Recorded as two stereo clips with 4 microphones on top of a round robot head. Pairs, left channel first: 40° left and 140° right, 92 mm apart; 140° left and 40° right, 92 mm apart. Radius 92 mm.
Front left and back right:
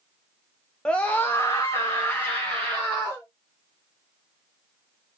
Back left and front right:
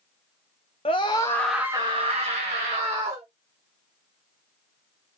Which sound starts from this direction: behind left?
A scream, at 0.8 s.